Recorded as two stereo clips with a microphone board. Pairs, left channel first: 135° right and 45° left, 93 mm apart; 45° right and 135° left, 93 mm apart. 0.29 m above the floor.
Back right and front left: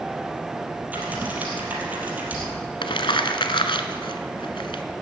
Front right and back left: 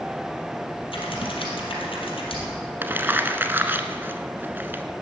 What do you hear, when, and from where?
0.9 s typing on a keyboard: 30° right, 3.5 m
2.8 s crumpling: 160° right, 1.1 m